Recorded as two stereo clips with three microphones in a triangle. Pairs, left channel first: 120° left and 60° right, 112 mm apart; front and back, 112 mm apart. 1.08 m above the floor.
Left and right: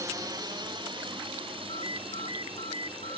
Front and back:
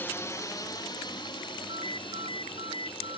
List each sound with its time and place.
0.0 s a drone: 50° right; by 3.2 s 30° right
1.7 s a ringtone: 145° left